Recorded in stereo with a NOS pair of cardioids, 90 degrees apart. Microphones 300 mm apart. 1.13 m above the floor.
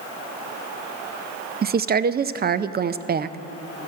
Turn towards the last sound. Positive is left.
turn(degrees=-30)